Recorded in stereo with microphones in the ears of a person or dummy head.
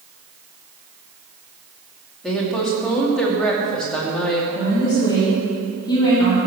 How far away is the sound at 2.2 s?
About 2.5 m.